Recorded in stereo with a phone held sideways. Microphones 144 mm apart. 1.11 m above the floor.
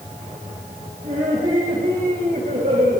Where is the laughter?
80° right, 7 m.